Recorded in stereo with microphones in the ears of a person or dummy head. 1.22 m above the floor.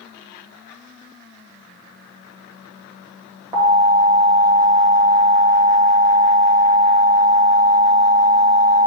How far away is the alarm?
About 1.8 m.